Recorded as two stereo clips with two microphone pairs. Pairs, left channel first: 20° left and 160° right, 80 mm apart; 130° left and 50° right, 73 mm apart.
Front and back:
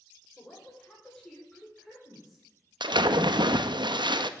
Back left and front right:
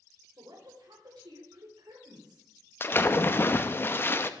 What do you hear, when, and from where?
0.4 s a woman speaking: 60° right, 3.5 m; by 2.5 s 75° right, 3 m
2.8 s a splash: 175° right, 0.6 m